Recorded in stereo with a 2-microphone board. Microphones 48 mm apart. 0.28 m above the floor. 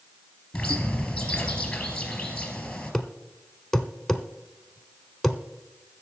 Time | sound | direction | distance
0.5 | a bird | 15° left (ahead or behind) | 3 m
2.9 | a thud | 5° left (ahead or behind) | 0.9 m